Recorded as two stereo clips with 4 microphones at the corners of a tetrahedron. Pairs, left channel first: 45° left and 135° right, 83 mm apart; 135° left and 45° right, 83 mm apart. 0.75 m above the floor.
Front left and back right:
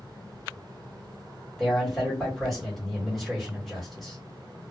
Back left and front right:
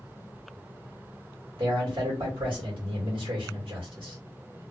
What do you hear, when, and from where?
1.6 s a man speaking: 45° right, 1.7 m